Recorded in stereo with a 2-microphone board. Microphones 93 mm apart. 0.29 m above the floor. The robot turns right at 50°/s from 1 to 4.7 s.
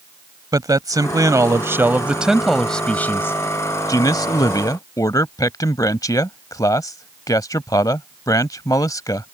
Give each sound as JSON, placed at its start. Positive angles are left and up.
{"t": 0.5, "sound": "a man speaking", "azimuth_deg": -75}